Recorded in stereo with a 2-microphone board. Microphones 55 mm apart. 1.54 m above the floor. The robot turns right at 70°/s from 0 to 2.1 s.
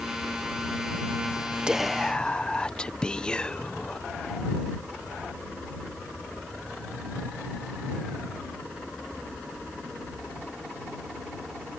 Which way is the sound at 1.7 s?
15° right.